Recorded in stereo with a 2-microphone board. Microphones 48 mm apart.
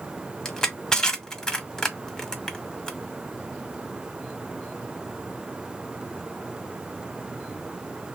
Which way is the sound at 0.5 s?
10° left (ahead or behind).